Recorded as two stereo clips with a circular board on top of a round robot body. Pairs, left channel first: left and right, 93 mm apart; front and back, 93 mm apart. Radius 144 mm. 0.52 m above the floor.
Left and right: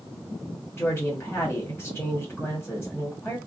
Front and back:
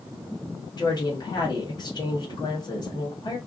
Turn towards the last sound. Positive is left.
turn(degrees=20)